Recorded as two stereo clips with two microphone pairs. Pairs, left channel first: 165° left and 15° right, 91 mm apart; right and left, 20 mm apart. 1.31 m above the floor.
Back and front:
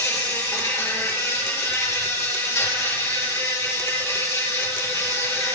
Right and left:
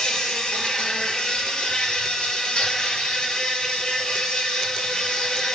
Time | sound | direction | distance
0.0 | an insect | 130° right | 6 m